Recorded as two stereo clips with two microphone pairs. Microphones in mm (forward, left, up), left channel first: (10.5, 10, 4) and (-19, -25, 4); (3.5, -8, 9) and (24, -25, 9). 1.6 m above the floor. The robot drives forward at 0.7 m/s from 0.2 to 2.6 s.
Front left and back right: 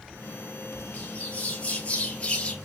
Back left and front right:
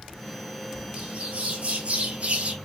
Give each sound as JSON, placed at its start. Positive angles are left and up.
{"t": 0.9, "sound": "a bird", "azimuth_deg": -5, "distance_m": 3.5}